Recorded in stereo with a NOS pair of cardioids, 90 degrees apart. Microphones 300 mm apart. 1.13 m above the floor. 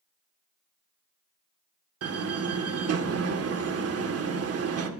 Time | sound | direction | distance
2.0 | a door slam | 50° right | 2.5 m